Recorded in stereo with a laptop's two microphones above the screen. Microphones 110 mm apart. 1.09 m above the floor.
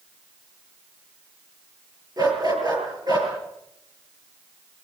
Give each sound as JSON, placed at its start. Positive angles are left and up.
{"t": 2.2, "sound": "a dog barking", "side_deg": -40, "distance_m": 6.0}